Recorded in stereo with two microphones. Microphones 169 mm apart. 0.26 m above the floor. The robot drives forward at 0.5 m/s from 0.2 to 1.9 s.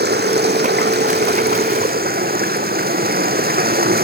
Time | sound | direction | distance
0.0 | running water | 80° right | 1.4 m